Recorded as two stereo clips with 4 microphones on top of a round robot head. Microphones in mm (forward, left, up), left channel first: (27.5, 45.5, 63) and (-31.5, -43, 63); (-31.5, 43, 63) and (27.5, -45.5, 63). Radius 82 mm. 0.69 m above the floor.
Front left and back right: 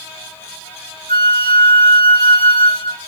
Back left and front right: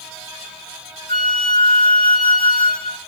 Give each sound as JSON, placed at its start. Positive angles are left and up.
{"t": 1.1, "sound": "a flute", "azimuth_deg": 85, "distance_m": 3.0}